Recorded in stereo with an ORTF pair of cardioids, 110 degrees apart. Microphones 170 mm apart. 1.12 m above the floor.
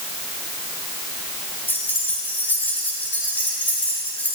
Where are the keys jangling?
10° left, 7 m.